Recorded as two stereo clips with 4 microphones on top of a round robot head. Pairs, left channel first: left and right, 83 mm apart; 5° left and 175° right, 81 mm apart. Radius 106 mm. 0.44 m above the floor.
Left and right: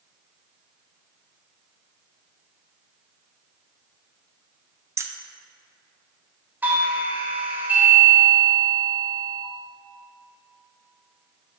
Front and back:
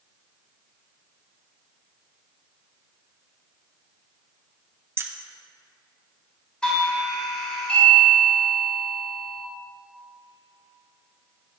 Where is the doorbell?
55° right, 1.5 m.